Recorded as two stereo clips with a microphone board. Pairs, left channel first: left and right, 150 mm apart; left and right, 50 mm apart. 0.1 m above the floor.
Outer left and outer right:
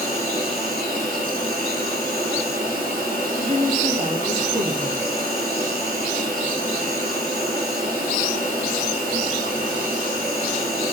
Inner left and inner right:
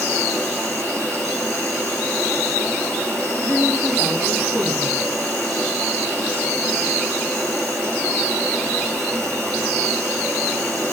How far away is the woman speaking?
About 2.5 m.